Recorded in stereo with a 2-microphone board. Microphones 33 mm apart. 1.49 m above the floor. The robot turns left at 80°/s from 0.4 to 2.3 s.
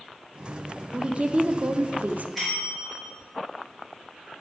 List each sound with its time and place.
0.9 s a woman speaking: 20° right, 0.6 m; by 2.2 s 125° right, 0.6 m
2.4 s a bell: 5° left (ahead or behind), 3.5 m